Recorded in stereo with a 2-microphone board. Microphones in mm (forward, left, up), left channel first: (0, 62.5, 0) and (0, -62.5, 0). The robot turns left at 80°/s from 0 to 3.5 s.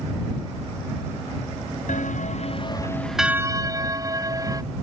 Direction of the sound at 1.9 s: 100° left.